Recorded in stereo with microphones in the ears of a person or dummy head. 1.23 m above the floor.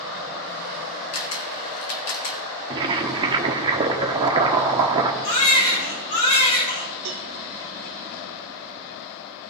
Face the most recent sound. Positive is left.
turn(degrees=-70)  # may be behind; listen again after turning